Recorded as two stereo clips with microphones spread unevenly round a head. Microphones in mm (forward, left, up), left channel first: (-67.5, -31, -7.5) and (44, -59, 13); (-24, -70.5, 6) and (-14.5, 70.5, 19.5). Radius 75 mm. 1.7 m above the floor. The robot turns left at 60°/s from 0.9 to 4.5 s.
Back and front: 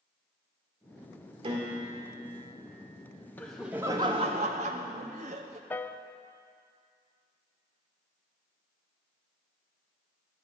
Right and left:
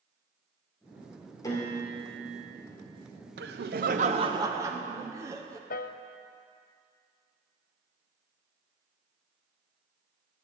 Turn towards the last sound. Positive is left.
turn(degrees=-120)